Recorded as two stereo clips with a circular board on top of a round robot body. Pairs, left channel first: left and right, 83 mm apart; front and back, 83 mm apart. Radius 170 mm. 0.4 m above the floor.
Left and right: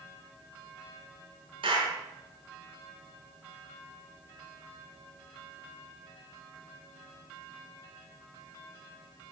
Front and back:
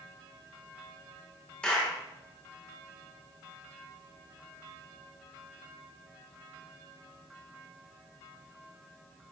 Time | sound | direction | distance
1.6 | a clap | 75° right | 5 m